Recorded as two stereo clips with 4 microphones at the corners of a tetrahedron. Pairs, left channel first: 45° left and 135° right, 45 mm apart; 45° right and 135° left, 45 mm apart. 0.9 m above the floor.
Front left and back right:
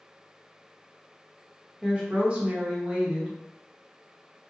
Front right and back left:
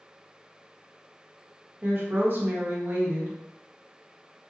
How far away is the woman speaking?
About 0.9 m.